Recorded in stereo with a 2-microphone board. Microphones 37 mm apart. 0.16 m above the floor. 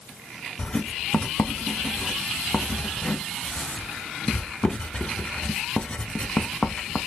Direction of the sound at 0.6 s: 25° left (ahead or behind).